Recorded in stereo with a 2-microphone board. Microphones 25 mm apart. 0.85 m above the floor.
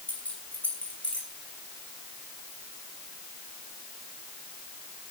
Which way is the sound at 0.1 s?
70° left (ahead or behind).